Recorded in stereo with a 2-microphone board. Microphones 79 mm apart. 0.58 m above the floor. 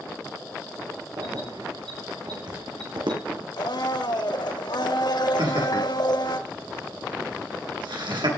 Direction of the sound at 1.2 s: 65° right (ahead or behind).